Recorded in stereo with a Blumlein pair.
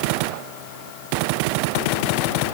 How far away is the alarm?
No alarm in this recording.